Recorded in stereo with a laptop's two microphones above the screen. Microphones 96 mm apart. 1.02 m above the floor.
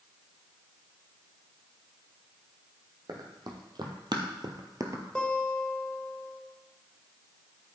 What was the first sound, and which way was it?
Running footsteps, 45° right (ahead or behind).